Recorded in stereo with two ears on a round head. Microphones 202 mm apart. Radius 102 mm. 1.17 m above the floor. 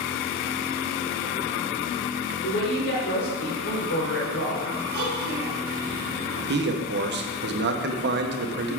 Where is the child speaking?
50° right (ahead or behind), 3.5 m.